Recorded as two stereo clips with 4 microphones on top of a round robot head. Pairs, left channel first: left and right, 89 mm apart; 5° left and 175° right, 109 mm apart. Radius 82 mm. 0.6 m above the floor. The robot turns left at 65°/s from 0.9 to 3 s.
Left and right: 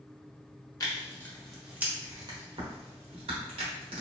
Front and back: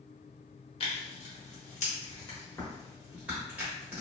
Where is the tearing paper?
40° left, 1.2 m; by 4.0 s 95° right, 1.2 m.